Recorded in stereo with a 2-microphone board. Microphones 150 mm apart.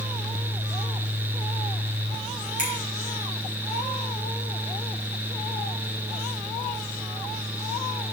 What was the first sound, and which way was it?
A finger snap, 60° right (ahead or behind).